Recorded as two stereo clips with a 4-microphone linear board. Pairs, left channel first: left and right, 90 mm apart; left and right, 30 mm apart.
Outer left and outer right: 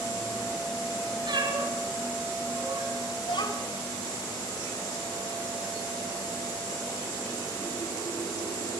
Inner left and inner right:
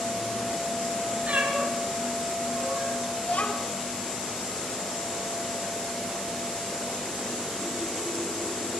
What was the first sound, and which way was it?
A cat meowing, 55° right (ahead or behind).